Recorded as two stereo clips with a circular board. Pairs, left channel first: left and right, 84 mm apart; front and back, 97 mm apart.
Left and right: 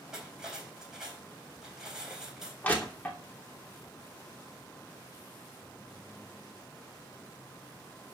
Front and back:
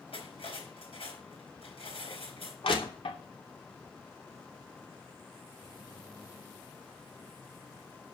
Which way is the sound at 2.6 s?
20° left.